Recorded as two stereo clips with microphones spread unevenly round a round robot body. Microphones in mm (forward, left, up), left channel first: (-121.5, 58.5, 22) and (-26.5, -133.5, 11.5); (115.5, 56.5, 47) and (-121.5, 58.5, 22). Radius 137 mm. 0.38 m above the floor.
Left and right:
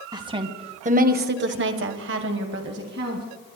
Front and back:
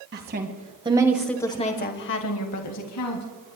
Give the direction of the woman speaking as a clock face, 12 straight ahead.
4 o'clock.